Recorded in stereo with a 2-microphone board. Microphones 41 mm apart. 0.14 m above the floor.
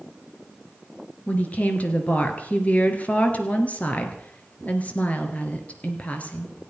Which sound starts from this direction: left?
A woman speaking, at 1.3 s.